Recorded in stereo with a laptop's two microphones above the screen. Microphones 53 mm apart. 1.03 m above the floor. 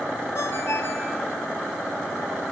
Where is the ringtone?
55° left (ahead or behind), 4.5 m.